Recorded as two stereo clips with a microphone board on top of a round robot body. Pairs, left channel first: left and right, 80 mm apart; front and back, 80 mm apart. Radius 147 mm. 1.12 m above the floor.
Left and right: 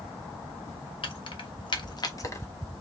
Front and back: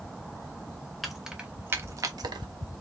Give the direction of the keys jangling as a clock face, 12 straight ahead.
9 o'clock.